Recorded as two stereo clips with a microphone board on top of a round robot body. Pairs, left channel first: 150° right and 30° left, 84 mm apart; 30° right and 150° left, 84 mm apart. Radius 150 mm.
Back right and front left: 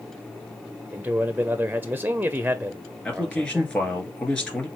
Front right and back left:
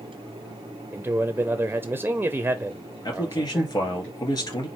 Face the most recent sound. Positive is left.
turn(degrees=-70)